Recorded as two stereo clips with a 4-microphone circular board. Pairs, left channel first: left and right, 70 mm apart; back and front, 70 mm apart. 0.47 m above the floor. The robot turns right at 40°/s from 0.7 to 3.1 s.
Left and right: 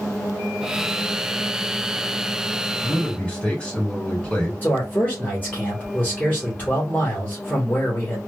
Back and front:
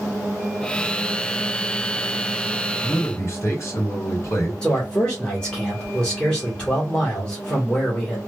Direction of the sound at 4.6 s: 115° left.